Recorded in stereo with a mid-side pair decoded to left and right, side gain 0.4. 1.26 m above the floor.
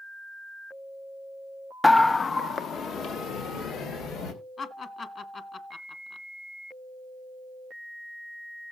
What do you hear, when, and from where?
1.8 s a scream: 10° left, 0.5 m; by 4.3 s 80° left, 3.5 m
4.6 s laughter: 50° left, 1.9 m